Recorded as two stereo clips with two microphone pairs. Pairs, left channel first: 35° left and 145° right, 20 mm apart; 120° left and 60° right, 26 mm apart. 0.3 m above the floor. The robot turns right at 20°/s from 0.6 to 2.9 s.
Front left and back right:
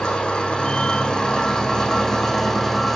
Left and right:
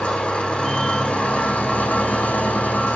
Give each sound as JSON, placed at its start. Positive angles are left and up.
{"t": 0.0, "sound": "an engine running", "azimuth_deg": 75, "distance_m": 6.5}